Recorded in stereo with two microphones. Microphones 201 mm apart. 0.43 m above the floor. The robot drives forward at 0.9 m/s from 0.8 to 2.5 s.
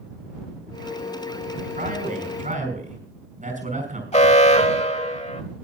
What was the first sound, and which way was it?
A man speaking, 45° right (ahead or behind).